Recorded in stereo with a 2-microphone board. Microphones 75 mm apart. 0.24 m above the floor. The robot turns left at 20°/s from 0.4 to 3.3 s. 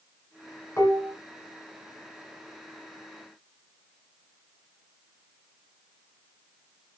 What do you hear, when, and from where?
0.8 s dishes clattering: 35° left (ahead or behind), 1.7 m; by 1.2 s 40° left (ahead or behind), 1.7 m